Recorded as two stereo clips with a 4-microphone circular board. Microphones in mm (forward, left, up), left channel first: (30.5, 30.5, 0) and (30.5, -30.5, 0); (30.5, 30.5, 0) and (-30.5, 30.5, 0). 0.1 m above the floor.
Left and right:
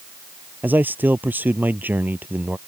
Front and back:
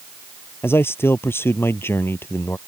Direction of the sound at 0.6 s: 40° right.